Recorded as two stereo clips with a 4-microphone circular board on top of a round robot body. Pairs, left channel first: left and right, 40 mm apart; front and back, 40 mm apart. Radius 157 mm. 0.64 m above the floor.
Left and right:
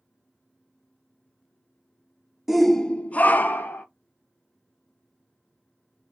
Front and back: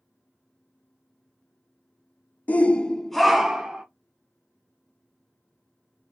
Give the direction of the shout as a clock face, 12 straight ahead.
12 o'clock.